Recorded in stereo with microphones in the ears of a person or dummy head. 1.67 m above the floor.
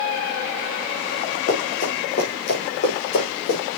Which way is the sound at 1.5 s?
40° left (ahead or behind).